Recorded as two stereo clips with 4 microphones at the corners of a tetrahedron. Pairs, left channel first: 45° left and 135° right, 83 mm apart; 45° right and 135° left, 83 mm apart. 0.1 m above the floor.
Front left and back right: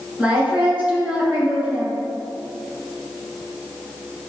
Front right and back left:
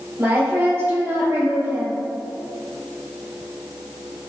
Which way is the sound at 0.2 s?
165° left.